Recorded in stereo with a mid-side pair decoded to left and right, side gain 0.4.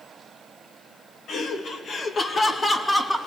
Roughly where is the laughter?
Left.